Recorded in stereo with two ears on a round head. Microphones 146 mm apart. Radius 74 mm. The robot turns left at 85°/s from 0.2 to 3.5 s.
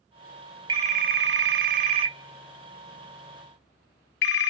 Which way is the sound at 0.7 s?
25° right.